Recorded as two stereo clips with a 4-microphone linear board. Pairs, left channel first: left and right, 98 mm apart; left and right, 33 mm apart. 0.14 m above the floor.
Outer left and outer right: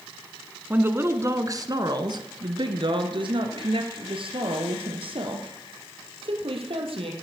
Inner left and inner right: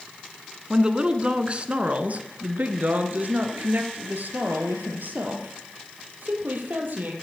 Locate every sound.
0.7 s a woman speaking: 20° right (ahead or behind), 1.2 m; by 7.1 s 65° right (ahead or behind), 3.5 m